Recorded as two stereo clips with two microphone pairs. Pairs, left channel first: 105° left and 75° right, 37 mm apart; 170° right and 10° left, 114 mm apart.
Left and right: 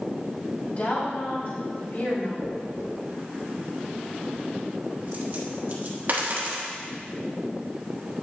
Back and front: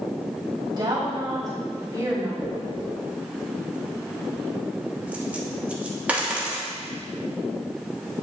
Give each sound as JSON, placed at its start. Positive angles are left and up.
{"t": 0.8, "sound": "a woman speaking", "azimuth_deg": 60, "distance_m": 3.0}
{"t": 2.4, "sound": "a dropped coin", "azimuth_deg": -65, "distance_m": 1.3}